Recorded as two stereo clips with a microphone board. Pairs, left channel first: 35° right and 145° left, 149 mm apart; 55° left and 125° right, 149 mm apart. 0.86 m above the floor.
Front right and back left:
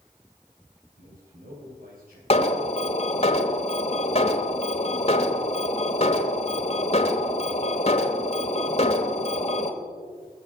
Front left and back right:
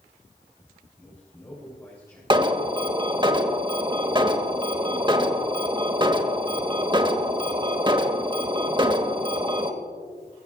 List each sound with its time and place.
1.0 s a man speaking: 125° left, 4 m
2.3 s an alarm: 70° right, 1.1 m